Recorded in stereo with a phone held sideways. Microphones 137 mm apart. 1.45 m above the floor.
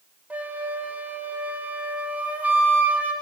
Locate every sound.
0.3 s a flute: 10° right (ahead or behind), 0.7 m